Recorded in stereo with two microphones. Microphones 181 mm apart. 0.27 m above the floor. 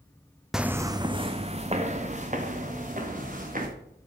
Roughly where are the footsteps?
Centre.